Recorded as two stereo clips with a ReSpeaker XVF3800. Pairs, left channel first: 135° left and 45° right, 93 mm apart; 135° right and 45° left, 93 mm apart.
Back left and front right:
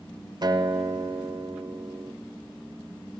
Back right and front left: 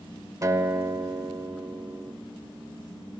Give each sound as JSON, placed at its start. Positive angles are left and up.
{"t": 0.4, "sound": "a guitar", "azimuth_deg": -5, "distance_m": 0.5}